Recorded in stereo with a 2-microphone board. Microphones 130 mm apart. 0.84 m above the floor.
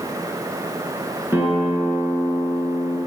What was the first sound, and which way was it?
A guitar, 15° right (ahead or behind).